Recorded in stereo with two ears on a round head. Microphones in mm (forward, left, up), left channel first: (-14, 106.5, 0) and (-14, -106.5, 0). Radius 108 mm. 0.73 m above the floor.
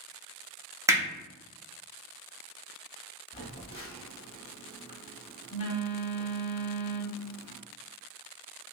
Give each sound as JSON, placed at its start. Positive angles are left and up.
{"t": 0.9, "sound": "hammering", "side_deg": -15, "distance_m": 0.9}
{"t": 3.3, "sound": "a phone buzzing", "side_deg": 25, "distance_m": 0.8}